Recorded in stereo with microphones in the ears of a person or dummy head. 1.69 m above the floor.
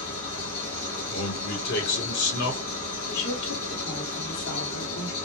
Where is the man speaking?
60° left (ahead or behind), 1.2 m.